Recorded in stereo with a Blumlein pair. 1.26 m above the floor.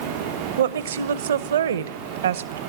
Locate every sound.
0.6 s a woman speaking: 65° right, 0.9 m